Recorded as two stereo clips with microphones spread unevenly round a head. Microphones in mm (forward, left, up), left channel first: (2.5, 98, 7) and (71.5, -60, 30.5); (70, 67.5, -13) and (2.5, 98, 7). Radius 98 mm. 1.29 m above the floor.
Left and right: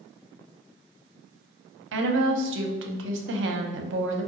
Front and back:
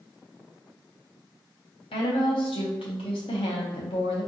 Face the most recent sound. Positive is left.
turn(degrees=-65)